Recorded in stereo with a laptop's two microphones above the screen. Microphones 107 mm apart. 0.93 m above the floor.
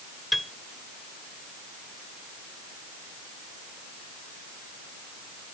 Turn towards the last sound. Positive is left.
turn(degrees=0)  # may be behind; listen again after turning